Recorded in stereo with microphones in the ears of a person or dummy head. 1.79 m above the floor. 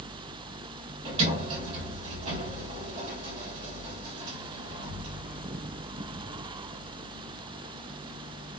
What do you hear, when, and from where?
1.1 s a sliding door: 40° right (ahead or behind), 1.8 m